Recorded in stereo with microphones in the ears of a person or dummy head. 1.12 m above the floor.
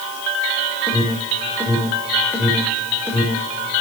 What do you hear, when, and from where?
0.9 s an alarm: 10° left (ahead or behind), 5.5 m